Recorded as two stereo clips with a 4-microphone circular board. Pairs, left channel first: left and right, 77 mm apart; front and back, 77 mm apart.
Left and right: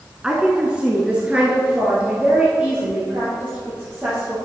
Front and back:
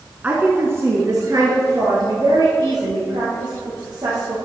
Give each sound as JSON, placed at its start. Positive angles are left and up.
{"t": 0.2, "sound": "a woman speaking", "azimuth_deg": -150, "distance_m": 1.1}